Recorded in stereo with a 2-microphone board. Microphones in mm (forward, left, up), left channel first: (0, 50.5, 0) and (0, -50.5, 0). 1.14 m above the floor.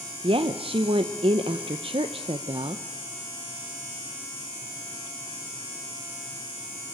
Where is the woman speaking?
60° right (ahead or behind), 0.8 m.